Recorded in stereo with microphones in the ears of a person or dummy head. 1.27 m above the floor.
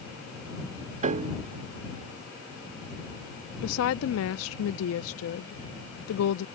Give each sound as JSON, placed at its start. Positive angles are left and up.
{"t": 1.0, "sound": "a piano", "side_deg": -45}
{"t": 3.6, "sound": "a woman speaking", "side_deg": 80}